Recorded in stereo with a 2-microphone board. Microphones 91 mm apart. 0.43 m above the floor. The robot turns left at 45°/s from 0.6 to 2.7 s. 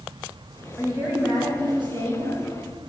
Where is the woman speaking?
20° right, 2 m; by 2.4 s 95° right, 2 m.